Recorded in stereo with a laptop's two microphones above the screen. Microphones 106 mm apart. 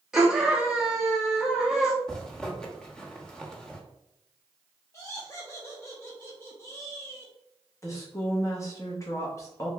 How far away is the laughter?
About 0.6 m.